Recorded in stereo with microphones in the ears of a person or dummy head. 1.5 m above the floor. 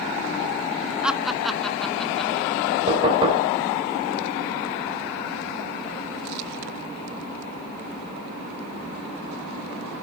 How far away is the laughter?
About 1.2 m.